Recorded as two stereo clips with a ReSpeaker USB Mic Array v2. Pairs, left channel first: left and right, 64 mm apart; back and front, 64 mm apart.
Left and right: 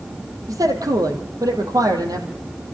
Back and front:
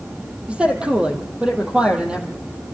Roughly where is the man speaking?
Right.